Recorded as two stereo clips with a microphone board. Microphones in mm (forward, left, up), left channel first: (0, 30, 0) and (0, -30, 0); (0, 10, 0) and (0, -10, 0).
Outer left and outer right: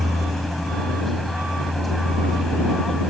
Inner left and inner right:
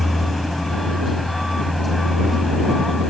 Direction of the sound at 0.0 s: 5° left (ahead or behind).